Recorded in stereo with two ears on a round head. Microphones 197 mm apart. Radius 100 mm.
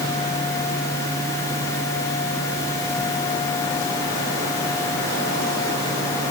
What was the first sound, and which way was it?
Only background noise.